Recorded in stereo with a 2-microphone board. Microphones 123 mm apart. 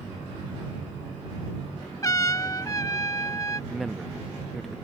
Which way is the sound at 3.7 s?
Centre (ahead or behind).